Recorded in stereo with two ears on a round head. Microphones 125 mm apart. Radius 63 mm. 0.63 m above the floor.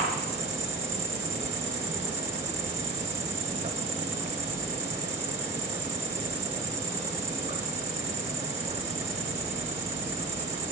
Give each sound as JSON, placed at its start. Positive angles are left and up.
{"t": 0.0, "sound": "an insect", "side_deg": -45, "distance_m": 0.9}